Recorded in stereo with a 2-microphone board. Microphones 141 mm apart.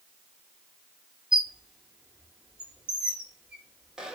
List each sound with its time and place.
1.3 s a squeak: 5° right (ahead or behind), 0.8 m